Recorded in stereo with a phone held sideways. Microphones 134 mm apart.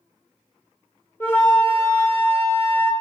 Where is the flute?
15° left (ahead or behind), 0.6 m.